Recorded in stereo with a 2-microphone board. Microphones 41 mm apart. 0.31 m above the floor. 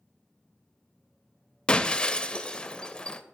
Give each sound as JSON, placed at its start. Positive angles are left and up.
{"t": 1.7, "sound": "breaking glass", "side_deg": 25, "distance_m": 0.5}